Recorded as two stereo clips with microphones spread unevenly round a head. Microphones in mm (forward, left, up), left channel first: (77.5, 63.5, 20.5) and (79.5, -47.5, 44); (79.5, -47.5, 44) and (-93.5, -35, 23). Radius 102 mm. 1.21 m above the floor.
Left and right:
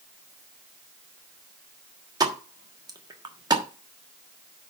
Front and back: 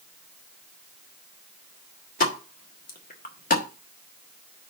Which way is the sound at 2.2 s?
40° right.